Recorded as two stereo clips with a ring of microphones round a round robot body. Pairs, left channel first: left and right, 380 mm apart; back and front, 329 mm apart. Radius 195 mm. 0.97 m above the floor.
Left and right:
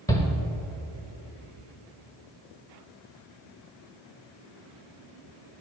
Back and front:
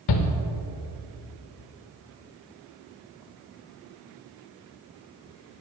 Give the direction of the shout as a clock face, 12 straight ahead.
6 o'clock.